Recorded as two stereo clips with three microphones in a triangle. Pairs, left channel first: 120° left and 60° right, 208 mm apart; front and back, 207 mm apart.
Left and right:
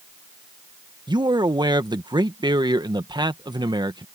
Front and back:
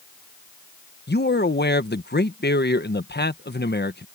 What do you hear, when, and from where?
1.1 s a man speaking: 5° left